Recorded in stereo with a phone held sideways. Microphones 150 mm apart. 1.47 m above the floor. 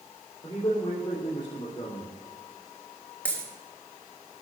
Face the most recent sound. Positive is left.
turn(degrees=10)  # may be behind; listen again after turning